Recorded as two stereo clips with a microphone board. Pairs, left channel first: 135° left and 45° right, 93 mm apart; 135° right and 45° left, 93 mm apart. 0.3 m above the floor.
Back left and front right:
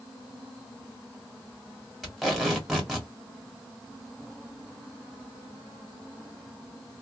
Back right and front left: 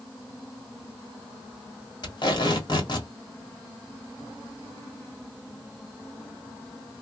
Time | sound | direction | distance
2.0 | tape being pulled | 135° right | 1.5 m